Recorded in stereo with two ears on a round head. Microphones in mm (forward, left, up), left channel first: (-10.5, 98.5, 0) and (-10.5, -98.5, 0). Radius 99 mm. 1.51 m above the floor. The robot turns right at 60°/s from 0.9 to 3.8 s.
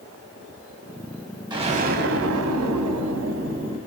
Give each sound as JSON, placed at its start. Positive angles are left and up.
{"t": 1.5, "sound": "an explosion", "azimuth_deg": -160, "distance_m": 0.7}